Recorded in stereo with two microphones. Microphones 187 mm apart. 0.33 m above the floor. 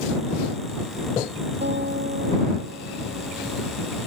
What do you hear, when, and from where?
1.6 s a guitar: 65° right (ahead or behind)